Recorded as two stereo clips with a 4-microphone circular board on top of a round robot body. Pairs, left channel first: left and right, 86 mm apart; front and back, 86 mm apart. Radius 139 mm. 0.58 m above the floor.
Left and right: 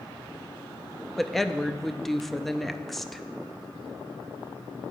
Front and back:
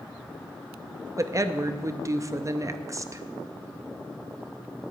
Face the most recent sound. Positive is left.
turn(degrees=175)